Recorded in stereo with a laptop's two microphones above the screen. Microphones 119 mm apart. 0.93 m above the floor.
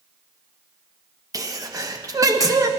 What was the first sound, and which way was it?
A sneeze, 30° right (ahead or behind).